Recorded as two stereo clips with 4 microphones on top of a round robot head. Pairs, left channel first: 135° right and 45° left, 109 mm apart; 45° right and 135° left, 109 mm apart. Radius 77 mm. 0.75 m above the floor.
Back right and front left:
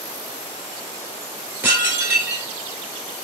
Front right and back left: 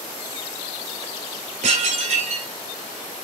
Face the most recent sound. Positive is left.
turn(degrees=115)